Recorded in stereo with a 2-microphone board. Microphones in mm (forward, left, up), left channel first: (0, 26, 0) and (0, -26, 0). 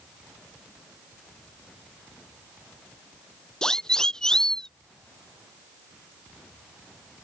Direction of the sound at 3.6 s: 15° left (ahead or behind).